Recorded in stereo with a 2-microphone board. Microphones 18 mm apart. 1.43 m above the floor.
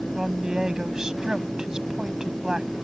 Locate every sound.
0.1 s a woman speaking: 45° right (ahead or behind)